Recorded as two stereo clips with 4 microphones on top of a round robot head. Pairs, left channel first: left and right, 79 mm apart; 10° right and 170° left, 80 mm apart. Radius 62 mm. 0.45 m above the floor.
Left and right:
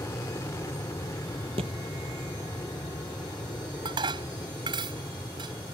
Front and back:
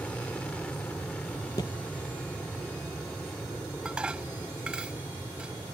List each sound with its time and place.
0.0 s an aircraft: 55° left
1.6 s a thud: 70° right
3.9 s dishes clattering: 110° right